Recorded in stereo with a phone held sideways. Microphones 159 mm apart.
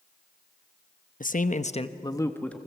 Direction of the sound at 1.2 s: 60° left (ahead or behind).